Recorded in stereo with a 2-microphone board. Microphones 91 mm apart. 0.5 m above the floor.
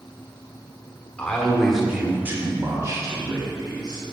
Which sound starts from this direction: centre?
A man speaking, at 1.2 s.